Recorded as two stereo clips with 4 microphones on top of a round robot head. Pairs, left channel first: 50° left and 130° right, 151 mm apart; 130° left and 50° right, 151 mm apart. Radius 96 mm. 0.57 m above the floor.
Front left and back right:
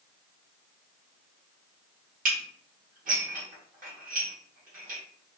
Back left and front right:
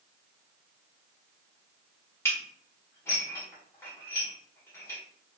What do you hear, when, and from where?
2.2 s dishes clattering: 160° right, 1.5 m